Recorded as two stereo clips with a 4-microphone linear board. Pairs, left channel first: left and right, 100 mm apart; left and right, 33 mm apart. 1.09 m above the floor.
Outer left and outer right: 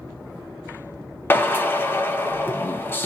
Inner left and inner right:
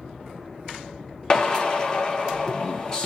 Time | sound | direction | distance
1.3 | a drill | 20° left (ahead or behind) | 0.6 m